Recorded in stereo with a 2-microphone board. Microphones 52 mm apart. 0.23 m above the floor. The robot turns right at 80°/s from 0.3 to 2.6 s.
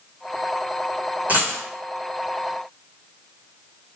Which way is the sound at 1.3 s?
30° right (ahead or behind).